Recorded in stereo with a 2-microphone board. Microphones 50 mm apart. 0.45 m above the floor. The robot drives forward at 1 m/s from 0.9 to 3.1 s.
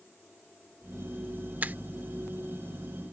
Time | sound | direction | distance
1.6 | a finger snap | 40° right (ahead or behind) | ?